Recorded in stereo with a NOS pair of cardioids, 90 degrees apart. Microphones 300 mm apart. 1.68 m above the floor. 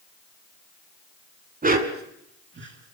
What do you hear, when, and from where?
1.6 s a dog barking: 30° right, 4.5 m; by 3.0 s 50° right, 5 m